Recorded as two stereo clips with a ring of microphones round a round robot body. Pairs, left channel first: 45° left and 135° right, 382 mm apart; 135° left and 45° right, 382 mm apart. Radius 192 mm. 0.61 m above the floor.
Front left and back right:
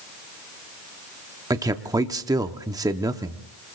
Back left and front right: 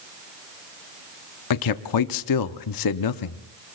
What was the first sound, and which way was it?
A man speaking, 145° left.